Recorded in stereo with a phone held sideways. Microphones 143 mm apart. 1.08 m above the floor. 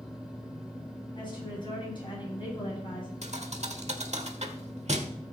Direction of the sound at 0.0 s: 5° right (ahead or behind).